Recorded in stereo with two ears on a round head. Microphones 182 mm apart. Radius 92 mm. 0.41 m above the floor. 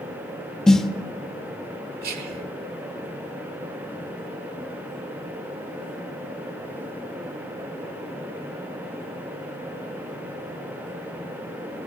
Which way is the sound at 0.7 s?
5° left (ahead or behind).